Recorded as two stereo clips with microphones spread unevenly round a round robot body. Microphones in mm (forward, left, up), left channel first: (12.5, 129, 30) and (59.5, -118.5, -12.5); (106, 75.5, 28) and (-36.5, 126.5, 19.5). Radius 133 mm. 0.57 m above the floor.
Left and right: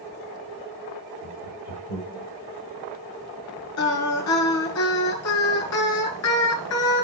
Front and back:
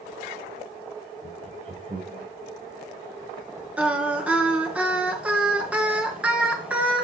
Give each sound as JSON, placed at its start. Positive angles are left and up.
{"t": 1.2, "sound": "laughter", "azimuth_deg": 115, "distance_m": 4.0}
{"t": 3.8, "sound": "singing", "azimuth_deg": 80, "distance_m": 5.0}